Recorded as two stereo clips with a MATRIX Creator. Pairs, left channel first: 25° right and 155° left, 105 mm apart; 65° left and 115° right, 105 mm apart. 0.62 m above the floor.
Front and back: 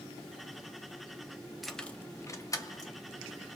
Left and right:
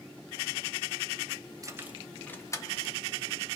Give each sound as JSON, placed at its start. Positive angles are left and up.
{"t": 1.6, "sound": "keys jangling", "azimuth_deg": -115, "distance_m": 0.5}